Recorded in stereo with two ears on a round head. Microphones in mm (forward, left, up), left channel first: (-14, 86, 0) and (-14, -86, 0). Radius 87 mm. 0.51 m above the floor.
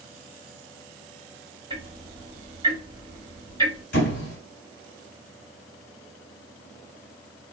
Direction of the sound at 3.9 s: 55° left (ahead or behind).